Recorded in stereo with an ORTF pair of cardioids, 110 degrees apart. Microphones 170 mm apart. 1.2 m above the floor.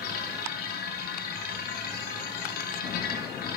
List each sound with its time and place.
0.0 s a machine running: 65° left, 1.1 m